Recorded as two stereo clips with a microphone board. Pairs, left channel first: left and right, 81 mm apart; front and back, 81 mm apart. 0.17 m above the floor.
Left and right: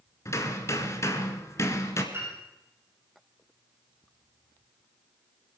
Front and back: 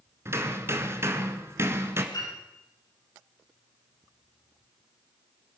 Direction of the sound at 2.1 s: 30° right.